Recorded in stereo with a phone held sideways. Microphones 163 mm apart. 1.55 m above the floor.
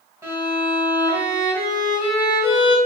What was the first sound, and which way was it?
A violin, 20° right (ahead or behind).